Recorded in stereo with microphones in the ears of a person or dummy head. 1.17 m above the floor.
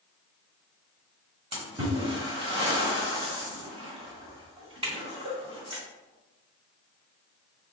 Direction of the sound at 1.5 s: 30° right (ahead or behind).